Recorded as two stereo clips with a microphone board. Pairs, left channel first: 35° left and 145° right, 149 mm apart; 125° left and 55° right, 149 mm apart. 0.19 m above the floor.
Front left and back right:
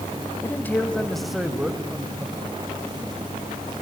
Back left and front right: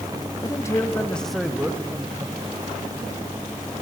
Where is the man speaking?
90° left, 1.3 m; by 2.4 s 95° right, 1.4 m.